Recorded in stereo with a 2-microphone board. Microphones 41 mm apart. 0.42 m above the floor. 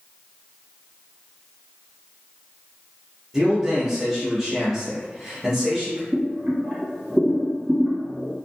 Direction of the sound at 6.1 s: 50° right (ahead or behind).